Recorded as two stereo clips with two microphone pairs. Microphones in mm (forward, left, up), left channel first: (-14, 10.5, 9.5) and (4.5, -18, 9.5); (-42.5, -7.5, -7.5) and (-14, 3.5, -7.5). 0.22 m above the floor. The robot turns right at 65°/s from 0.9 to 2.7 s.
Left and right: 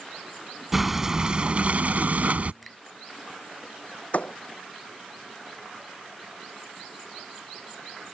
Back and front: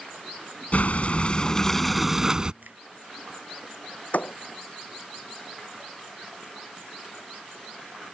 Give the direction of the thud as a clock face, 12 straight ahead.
6 o'clock.